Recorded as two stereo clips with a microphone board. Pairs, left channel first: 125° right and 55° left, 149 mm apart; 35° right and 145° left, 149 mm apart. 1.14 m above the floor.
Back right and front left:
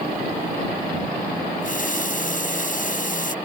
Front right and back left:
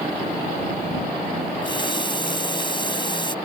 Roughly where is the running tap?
Right.